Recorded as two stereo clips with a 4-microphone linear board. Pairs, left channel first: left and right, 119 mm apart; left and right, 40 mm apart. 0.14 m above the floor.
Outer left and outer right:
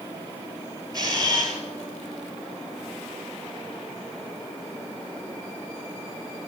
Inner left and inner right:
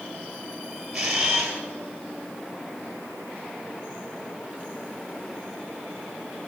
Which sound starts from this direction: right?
A camera shutter, at 0.9 s.